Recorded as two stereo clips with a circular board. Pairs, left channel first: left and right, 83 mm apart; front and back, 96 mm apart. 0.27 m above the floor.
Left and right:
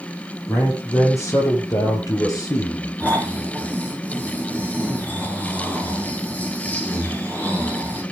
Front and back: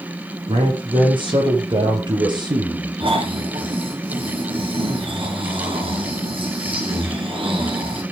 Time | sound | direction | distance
0.5 | a man speaking | 145° left | 7 m
3.0 | snoring | 160° left | 4 m